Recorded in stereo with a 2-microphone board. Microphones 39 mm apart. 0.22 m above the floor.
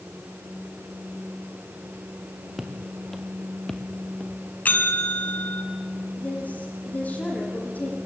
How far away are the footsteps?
About 3 m.